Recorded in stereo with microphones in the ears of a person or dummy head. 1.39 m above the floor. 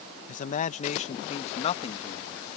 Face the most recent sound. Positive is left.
turn(degrees=30)  # may be behind; listen again after turning